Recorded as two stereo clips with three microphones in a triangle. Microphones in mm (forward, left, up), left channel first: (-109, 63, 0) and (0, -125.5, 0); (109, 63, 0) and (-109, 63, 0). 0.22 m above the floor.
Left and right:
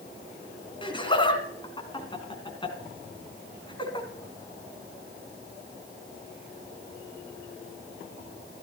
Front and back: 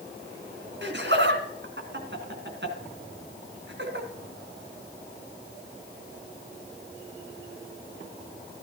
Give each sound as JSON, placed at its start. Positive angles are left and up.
{"t": 0.8, "sound": "laughter", "azimuth_deg": -175, "distance_m": 2.5}